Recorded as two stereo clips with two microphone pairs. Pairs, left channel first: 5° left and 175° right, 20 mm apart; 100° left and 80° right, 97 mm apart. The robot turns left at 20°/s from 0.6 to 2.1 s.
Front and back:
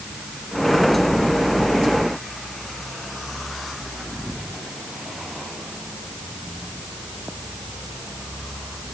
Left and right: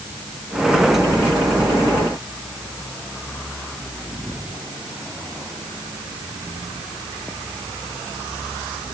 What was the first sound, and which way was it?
Only background noise.